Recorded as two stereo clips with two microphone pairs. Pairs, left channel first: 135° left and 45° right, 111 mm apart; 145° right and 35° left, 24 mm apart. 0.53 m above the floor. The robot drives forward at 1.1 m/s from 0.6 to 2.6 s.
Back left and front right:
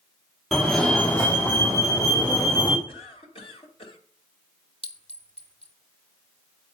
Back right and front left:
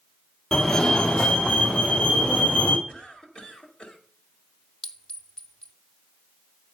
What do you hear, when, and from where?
0.5 s a fire alarm: 135° right, 1.6 m; by 2.8 s 170° right, 3 m
2.9 s a cough: 165° left, 2 m
4.8 s a clink: 155° left, 0.9 m